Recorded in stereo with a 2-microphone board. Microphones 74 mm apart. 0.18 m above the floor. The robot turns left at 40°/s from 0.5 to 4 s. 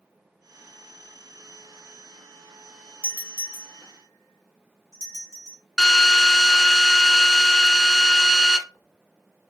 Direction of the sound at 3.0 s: 20° right (ahead or behind).